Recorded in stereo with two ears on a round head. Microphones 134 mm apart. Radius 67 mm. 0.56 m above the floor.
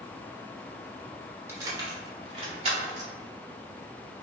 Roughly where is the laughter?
I don't hear laughter.